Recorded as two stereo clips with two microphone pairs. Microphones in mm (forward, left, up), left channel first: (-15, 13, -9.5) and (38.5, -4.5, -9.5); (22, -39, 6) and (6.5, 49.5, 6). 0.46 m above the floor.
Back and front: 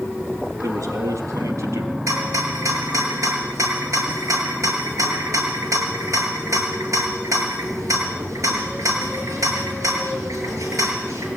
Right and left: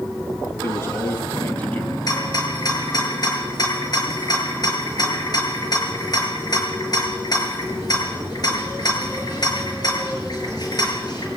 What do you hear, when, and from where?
0.6 s a man speaking: 20° right, 5 m; by 2.0 s 5° right, 4 m
2.1 s a rattle: 40° right, 7 m